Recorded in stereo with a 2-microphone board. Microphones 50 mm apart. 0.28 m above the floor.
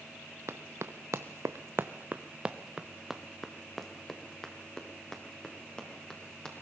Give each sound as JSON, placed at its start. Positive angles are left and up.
{"t": 0.5, "sound": "running footsteps", "side_deg": -65, "distance_m": 1.5}